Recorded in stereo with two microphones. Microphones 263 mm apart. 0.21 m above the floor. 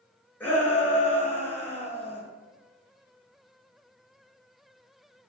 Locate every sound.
0.4 s a shout: 5° left (ahead or behind), 3.5 m